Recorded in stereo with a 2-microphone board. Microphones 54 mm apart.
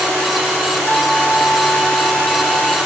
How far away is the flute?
About 0.8 m.